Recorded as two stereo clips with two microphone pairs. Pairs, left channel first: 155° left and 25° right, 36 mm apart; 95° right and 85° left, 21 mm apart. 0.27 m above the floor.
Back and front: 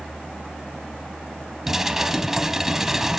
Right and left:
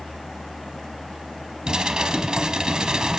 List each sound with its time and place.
1.7 s dishes clattering: 50° left, 1.3 m